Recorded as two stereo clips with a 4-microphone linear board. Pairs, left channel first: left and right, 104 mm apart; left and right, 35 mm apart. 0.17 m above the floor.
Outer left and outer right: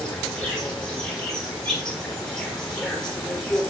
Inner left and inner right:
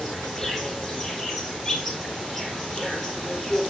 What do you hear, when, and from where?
0.0 s an insect: 5° left (ahead or behind), 1.0 m